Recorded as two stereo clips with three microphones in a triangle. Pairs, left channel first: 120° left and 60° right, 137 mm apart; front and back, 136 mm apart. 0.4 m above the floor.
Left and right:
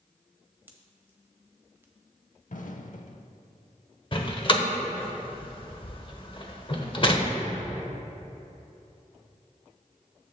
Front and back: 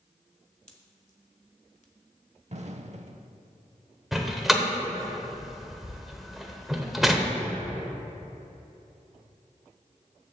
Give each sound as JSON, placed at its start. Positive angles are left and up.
{"t": 0.7, "sound": "a pop", "azimuth_deg": 10, "distance_m": 1.2}
{"t": 2.5, "sound": "an explosion", "azimuth_deg": 145, "distance_m": 0.6}
{"t": 4.1, "sound": "a door slam", "azimuth_deg": 90, "distance_m": 1.0}